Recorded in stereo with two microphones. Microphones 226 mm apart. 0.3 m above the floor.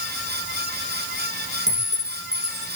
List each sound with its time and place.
1.7 s a clink: 30° right (ahead or behind), 7 m